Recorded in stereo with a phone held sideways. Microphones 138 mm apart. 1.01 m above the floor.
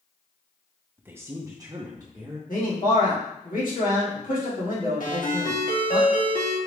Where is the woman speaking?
15° right (ahead or behind), 0.5 m; by 2.4 s 30° right (ahead or behind), 1.0 m.